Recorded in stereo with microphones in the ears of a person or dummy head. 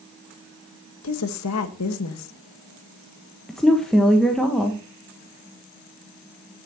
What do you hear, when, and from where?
1.0 s a woman speaking: 80° left, 1.4 m
3.5 s a woman speaking: 5° left (ahead or behind), 1.2 m